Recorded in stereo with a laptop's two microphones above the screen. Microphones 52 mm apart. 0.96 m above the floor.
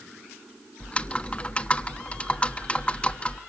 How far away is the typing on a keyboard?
About 1.0 m.